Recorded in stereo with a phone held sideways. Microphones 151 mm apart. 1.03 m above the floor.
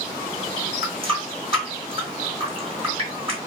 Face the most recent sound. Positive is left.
turn(degrees=-35)  # may be behind; listen again after turning